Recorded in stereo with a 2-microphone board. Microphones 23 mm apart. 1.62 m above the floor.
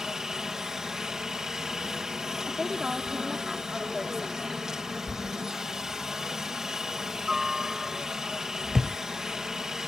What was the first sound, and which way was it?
A helicopter, 25° right (ahead or behind).